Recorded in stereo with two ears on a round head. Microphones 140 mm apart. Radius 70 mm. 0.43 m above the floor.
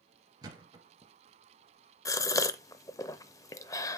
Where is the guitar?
I don't hear a guitar.